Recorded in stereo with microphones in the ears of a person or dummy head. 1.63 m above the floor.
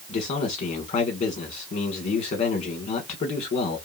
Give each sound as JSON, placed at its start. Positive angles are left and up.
{"t": 0.1, "sound": "a man speaking", "side_deg": 40, "distance_m": 1.1}